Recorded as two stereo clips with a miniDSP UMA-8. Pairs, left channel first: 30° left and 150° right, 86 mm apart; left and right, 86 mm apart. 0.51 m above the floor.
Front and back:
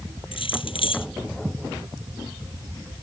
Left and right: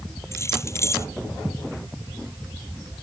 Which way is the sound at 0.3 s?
30° left.